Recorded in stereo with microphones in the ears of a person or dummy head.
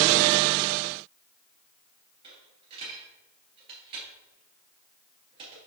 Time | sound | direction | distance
2.2 | a dropped coin | 35° right (ahead or behind) | 2.5 m